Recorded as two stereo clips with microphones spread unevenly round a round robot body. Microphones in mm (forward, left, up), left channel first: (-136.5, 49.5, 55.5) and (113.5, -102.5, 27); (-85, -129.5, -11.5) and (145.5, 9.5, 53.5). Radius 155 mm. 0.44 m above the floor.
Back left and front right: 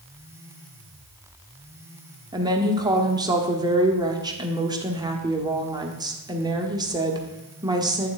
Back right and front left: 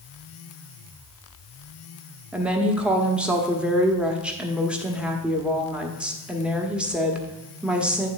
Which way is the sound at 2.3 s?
80° right.